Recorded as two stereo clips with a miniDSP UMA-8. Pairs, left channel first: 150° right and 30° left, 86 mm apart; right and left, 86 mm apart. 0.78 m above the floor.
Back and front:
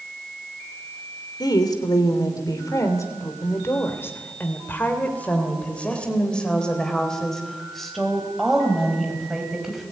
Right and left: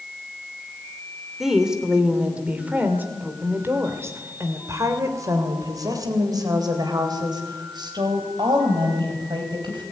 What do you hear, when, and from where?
1.4 s a woman speaking: 175° left, 3 m; by 9.8 s 115° left, 5 m